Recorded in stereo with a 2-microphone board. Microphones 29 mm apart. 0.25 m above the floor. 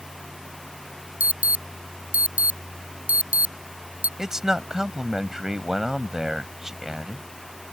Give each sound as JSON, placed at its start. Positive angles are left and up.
{"t": 1.2, "sound": "an alarm", "side_deg": -60}
{"t": 4.2, "sound": "a man speaking", "side_deg": -15}